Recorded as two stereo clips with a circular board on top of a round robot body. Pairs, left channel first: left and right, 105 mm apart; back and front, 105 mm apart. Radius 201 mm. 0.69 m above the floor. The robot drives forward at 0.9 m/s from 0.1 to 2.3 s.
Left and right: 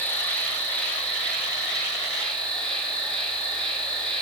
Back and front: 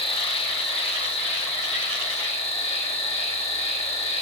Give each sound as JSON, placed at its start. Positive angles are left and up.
{"t": 0.0, "sound": "an insect", "azimuth_deg": 165, "distance_m": 3.0}